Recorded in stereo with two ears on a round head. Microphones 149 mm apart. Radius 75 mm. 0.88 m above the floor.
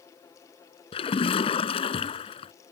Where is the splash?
35° left (ahead or behind).